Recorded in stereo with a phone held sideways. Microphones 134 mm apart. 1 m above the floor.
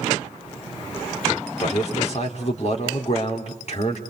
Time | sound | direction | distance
1.6 | a man speaking | 55° left (ahead or behind) | 3.5 m